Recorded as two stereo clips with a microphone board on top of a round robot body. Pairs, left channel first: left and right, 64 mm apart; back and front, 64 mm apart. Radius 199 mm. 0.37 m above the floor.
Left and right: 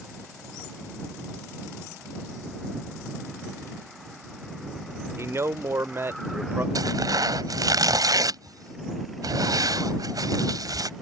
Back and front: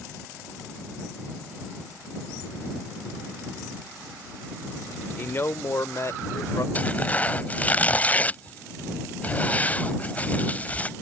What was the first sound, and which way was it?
A man speaking, 130° right.